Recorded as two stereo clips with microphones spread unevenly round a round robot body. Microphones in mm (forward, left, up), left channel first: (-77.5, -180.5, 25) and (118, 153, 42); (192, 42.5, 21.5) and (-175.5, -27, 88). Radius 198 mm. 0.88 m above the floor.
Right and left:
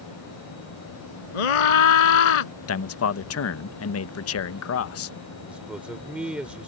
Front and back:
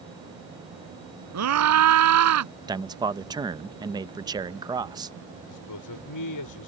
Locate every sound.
1.3 s a scream: 120° right
2.7 s a man speaking: 85° right
5.5 s a man speaking: 30° right